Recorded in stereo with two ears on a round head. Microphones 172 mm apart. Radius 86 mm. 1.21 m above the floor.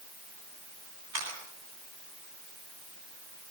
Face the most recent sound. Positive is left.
turn(degrees=-80)